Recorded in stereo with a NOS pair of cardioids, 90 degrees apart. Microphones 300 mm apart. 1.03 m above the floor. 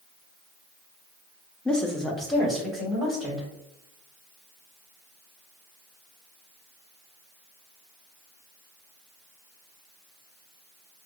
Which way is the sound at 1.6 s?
5° left.